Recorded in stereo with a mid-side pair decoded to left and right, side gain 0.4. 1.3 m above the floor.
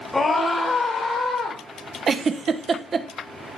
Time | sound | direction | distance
0.1 | a scream | 25° left | 1.5 m
2.1 | a giggle | 45° right | 0.8 m